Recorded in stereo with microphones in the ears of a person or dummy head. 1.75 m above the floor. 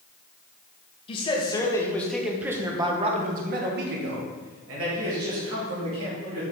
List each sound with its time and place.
1.1 s a man speaking: 30° left (ahead or behind), 1.5 m; by 6.4 s 85° right, 3 m